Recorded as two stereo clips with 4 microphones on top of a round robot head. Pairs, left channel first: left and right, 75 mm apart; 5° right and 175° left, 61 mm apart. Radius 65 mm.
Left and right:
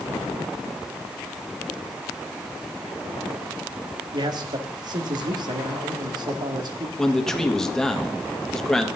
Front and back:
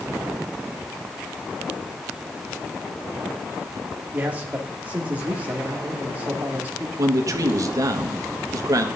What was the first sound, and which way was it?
A man speaking, 115° right.